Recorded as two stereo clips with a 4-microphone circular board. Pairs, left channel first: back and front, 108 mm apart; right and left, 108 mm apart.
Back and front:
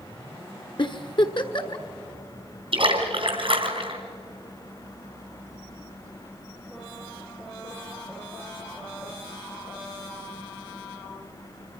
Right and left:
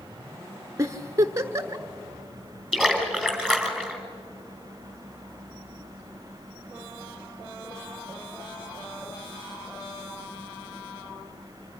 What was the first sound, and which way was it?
A giggle, 145° left.